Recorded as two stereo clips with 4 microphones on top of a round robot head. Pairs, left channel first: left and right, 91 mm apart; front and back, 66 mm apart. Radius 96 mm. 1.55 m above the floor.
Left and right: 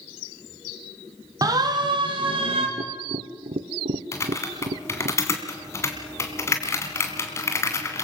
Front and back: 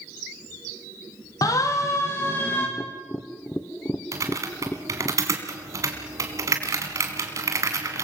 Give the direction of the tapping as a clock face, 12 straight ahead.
2 o'clock.